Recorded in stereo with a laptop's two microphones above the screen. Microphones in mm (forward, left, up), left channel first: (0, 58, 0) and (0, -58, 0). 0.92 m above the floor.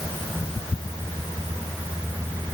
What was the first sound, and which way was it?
Only background noise.